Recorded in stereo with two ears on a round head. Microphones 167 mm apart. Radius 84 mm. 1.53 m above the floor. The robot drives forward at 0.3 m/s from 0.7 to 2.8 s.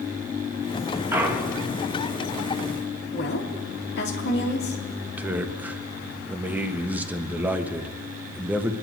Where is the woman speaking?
60° left (ahead or behind), 2.5 m.